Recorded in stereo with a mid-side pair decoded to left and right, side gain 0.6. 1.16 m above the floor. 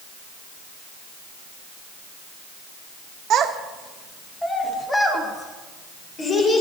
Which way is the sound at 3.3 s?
55° right.